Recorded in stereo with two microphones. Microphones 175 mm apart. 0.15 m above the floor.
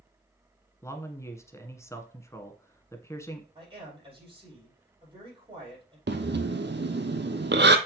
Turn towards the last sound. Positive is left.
turn(degrees=-80)